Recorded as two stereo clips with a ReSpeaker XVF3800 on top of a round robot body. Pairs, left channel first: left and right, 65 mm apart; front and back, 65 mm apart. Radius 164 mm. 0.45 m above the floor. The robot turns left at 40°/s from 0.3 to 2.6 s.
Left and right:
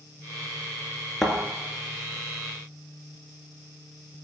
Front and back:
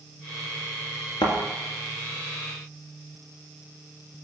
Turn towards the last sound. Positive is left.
turn(degrees=-50)